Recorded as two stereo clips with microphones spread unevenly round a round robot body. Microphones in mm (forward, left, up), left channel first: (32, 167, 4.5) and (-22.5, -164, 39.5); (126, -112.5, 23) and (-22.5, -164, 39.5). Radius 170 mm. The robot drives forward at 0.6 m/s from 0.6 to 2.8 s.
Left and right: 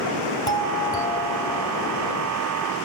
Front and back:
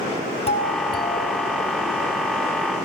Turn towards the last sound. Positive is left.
turn(degrees=100)